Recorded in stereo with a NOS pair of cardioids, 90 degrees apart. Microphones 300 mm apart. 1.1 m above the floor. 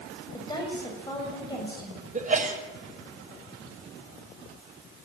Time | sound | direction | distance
0.3 | a woman speaking | 15° left | 7 m
2.1 | a sneeze | 25° right | 5.5 m